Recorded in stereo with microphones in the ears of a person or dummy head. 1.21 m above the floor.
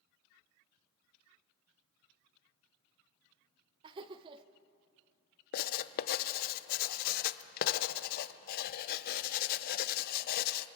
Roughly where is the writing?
Left.